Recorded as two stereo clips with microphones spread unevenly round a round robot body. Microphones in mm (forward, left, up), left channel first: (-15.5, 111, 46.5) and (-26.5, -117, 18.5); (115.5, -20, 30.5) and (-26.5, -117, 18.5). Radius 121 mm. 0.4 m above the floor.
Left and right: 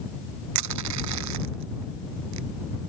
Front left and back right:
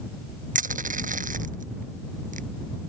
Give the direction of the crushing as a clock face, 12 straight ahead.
3 o'clock.